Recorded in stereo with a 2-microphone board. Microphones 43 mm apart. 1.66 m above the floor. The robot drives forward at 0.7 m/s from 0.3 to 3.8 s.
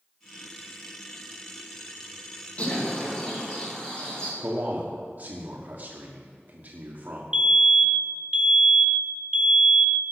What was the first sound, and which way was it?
A bird, 25° left (ahead or behind).